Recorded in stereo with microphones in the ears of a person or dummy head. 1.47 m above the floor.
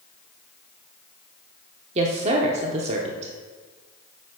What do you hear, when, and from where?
1.9 s a woman speaking: 35° right (ahead or behind), 0.7 m